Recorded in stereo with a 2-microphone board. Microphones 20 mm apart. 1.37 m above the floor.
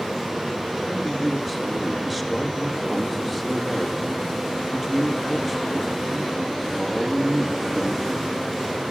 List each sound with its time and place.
0.9 s a man speaking: 5° right (ahead or behind), 1.8 m